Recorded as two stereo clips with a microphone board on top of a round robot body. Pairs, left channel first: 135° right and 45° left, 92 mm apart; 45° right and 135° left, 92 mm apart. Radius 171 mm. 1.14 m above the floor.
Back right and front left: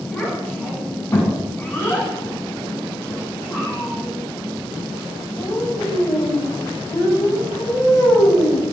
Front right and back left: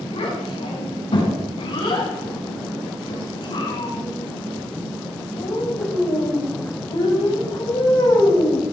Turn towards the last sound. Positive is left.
turn(degrees=-85)